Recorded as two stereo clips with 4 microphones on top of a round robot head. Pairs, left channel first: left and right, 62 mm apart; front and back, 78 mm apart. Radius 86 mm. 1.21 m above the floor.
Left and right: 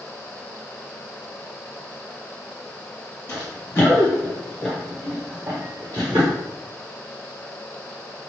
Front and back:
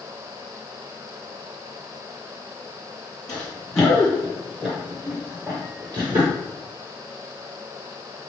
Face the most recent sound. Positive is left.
turn(degrees=-125)